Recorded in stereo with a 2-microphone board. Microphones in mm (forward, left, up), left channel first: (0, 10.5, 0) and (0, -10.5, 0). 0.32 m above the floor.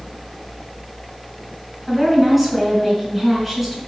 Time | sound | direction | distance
1.9 | a woman speaking | 10° right (ahead or behind) | 3.5 m